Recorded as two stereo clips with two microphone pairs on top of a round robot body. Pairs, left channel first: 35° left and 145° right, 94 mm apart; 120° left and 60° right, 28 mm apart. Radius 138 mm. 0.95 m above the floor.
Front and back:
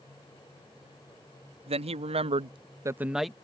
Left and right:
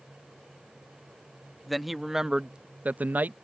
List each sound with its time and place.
1.7 s a man speaking: 150° right; by 3.3 s 55° right